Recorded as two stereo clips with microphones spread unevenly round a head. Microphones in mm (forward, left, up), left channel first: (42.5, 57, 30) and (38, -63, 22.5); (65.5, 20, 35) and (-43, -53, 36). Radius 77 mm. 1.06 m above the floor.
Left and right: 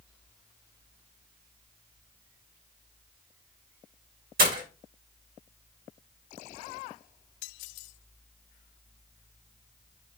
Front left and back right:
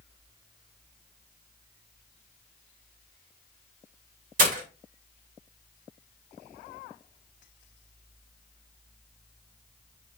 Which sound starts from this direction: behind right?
Breaking glass, at 4.4 s.